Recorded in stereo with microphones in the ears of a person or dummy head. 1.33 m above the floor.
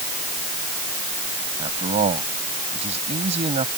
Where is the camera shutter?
I don't hear a camera shutter.